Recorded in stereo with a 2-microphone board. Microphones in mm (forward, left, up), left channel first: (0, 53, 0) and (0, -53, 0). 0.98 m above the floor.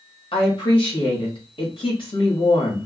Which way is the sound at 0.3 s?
55° left (ahead or behind).